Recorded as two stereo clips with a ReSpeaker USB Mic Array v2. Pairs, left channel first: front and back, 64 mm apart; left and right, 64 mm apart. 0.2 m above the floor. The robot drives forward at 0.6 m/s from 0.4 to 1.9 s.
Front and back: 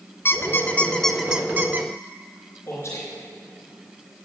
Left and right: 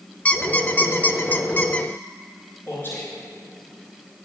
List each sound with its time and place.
0.2 s a squeak: 30° left, 0.7 m; by 1.9 s 150° left, 0.7 m
2.7 s a man speaking: 40° left, 3 m